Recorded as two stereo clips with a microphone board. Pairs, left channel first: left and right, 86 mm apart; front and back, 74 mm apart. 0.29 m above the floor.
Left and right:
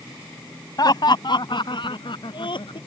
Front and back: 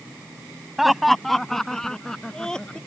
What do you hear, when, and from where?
0.8 s laughter: 90° left; by 2.8 s 80° left